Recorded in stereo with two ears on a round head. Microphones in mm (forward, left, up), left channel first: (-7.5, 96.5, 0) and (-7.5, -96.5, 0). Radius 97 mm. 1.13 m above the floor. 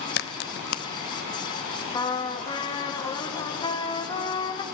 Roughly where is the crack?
Left.